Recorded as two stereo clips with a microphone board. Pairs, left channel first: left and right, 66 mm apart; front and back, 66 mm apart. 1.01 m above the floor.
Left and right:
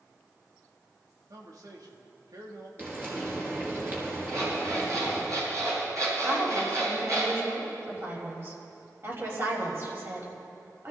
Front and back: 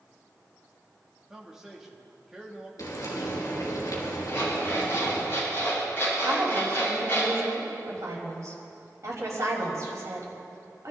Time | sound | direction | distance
1.3 | a man speaking | 100° right | 2.5 m
2.8 | frying | 30° right | 4.5 m
4.3 | an alarm clock | 55° right | 7 m
6.2 | a woman speaking | 140° right | 5.5 m